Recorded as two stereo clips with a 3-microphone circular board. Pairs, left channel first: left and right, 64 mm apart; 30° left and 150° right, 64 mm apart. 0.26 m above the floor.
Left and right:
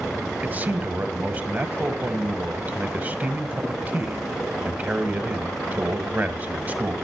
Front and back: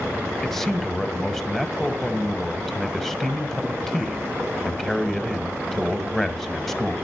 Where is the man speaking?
50° right, 1.6 m.